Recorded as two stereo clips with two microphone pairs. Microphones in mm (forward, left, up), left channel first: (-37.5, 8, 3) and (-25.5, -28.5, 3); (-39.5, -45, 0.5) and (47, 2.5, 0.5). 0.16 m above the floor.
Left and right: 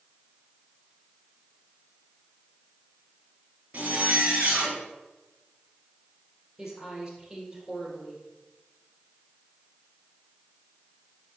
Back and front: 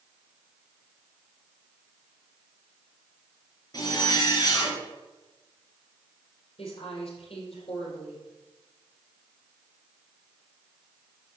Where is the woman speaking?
150° right, 4.5 m.